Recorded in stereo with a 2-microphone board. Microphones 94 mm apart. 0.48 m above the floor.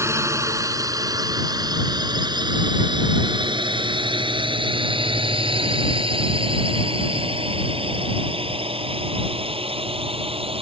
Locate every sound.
0.0 s a drone: 30° right (ahead or behind); by 10.6 s 80° right